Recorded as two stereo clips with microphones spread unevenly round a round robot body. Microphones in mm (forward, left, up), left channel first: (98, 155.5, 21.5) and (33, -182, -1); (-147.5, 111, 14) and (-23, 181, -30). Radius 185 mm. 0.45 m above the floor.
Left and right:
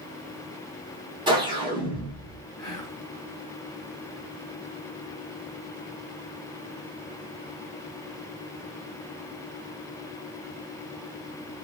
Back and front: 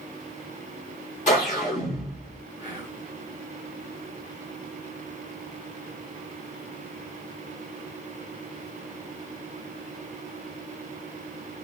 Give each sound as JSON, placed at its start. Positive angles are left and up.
{"t": 1.3, "sound": "a whoosh", "azimuth_deg": -160, "distance_m": 1.4}
{"t": 2.6, "sound": "whispering", "azimuth_deg": 0, "distance_m": 1.5}